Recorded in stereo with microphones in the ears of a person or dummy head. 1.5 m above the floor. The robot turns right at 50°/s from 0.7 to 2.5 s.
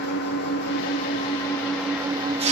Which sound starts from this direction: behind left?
An engine running, at 0.0 s.